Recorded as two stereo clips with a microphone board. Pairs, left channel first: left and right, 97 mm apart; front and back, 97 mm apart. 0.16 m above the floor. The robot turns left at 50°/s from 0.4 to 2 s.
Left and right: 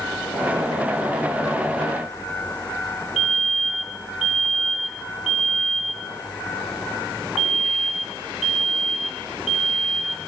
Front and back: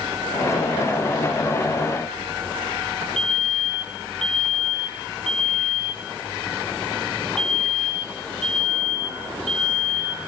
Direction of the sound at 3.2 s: Straight behind.